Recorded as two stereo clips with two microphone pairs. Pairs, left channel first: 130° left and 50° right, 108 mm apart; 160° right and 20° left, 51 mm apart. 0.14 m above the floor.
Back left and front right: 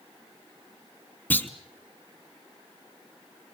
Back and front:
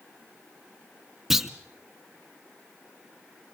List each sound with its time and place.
1.3 s a clunk: 90° left, 0.9 m